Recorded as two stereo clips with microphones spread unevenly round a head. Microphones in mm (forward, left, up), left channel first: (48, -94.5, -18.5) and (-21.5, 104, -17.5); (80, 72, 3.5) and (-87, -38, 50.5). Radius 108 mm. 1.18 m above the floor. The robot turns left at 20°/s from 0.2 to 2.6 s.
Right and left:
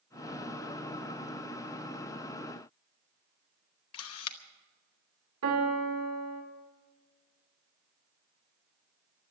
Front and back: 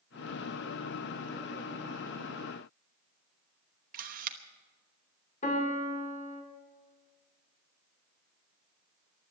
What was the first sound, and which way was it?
A camera shutter, 95° right.